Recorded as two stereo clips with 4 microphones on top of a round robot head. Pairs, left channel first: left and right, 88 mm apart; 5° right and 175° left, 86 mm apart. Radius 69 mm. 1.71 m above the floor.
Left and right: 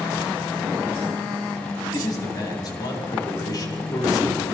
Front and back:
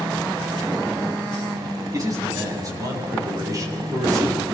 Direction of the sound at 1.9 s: 130° left.